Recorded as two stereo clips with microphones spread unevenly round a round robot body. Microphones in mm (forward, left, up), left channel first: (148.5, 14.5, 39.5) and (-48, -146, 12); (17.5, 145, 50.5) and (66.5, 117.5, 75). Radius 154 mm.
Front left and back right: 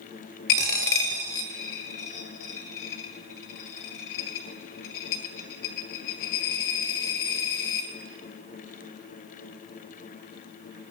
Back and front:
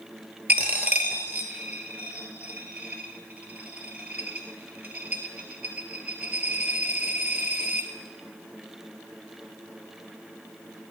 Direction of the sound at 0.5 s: 10° left.